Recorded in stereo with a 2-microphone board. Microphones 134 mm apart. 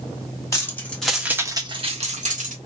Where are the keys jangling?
20° left (ahead or behind), 1.5 m; by 2.5 s 70° right (ahead or behind), 1.6 m.